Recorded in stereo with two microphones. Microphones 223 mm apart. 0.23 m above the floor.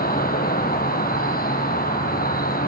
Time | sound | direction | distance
0.0 | an insect | 45° left (ahead or behind) | 1.3 m